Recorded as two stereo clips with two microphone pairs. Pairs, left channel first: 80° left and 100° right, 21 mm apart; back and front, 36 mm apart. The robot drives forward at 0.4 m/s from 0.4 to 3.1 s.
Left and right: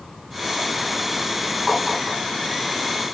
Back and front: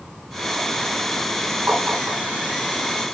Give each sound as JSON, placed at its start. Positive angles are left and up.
{"t": 1.7, "sound": "tapping", "azimuth_deg": -10, "distance_m": 3.5}